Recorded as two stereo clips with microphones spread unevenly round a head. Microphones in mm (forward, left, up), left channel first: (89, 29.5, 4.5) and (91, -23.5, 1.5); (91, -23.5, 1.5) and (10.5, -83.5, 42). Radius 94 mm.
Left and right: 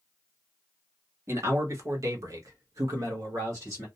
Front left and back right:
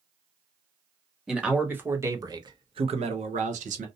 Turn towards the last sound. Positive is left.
turn(degrees=-140)